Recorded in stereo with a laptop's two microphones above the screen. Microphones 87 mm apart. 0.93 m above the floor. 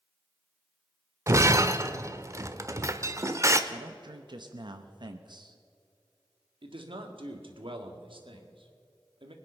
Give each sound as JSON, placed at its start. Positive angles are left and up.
{"t": 1.3, "sound": "breaking glass", "side_deg": -35, "distance_m": 0.9}
{"t": 3.7, "sound": "a man speaking", "side_deg": -60, "distance_m": 0.8}
{"t": 6.6, "sound": "a man speaking", "side_deg": -75, "distance_m": 1.9}